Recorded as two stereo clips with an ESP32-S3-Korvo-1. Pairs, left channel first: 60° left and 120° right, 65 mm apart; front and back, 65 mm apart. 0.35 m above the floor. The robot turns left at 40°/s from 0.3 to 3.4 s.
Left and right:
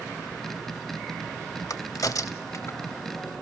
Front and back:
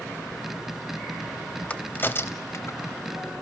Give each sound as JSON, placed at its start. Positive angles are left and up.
{"t": 1.7, "sound": "a crack", "azimuth_deg": 65, "distance_m": 0.7}